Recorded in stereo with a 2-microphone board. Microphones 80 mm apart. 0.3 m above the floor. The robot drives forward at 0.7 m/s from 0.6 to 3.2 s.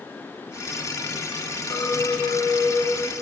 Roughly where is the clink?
Left.